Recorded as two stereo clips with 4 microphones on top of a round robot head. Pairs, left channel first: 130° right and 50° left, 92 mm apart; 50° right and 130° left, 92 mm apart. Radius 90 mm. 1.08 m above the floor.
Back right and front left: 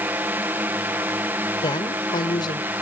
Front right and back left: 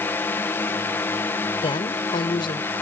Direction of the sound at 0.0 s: Straight ahead.